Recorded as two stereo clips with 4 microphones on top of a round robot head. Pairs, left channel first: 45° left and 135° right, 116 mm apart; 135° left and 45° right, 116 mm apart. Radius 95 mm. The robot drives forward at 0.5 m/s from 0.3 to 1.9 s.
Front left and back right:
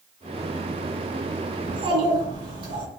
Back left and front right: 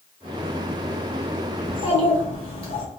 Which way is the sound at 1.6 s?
175° left.